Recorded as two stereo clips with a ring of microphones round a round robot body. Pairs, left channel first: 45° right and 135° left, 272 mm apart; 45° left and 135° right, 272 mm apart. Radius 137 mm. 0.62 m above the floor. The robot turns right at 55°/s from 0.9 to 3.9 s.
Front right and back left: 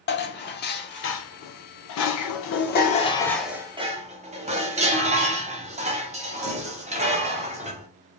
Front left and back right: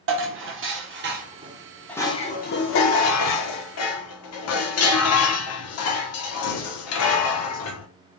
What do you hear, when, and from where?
0.1 s dishes clattering: 95° right, 1.0 m; by 7.9 s 70° left, 1.0 m